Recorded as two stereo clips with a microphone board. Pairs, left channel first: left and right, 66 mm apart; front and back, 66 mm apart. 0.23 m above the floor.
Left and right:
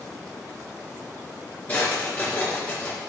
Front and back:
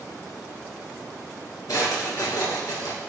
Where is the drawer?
25° left, 2.5 m.